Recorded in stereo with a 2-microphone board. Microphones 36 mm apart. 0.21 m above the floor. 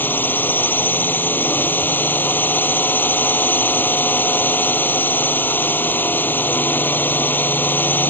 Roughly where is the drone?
Left.